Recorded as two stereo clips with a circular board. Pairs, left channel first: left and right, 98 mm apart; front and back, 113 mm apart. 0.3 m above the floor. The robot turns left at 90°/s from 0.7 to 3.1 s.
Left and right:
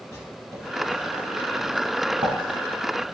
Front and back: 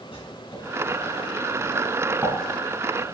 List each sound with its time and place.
0.1 s writing: 30° left, 4.5 m; by 3.0 s straight behind, 4.5 m